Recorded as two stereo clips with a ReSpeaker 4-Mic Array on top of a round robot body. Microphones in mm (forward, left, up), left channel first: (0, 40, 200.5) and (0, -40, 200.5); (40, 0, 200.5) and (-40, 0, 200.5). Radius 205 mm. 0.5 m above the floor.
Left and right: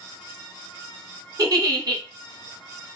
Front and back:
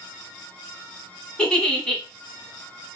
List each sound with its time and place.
1.4 s a giggle: 80° right, 1.2 m